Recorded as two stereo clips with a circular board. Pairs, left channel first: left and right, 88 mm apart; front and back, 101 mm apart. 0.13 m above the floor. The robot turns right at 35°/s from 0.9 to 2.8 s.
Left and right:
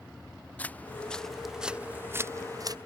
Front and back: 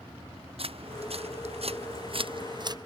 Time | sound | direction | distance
0.6 | footsteps | 165° left | ?